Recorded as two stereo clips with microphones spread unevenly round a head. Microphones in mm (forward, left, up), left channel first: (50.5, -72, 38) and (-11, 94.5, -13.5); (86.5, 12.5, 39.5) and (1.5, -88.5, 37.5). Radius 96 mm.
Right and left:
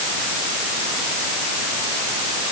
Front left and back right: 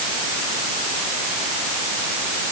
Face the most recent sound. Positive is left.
No sound to turn to.